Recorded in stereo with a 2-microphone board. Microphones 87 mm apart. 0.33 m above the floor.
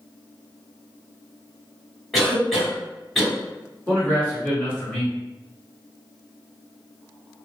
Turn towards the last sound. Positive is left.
turn(degrees=20)  # may be behind; listen again after turning